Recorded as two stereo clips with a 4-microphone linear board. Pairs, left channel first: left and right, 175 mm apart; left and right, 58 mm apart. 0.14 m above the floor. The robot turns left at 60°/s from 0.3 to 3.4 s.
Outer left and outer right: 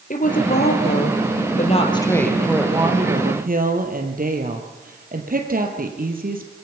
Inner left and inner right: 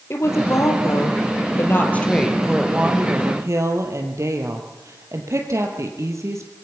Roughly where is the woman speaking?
Behind left.